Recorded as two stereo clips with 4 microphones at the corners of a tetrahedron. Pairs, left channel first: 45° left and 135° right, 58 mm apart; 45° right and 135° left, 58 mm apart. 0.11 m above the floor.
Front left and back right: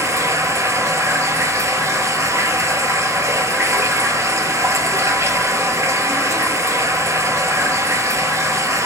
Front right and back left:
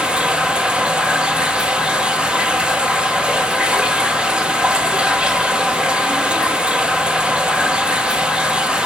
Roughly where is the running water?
Behind right.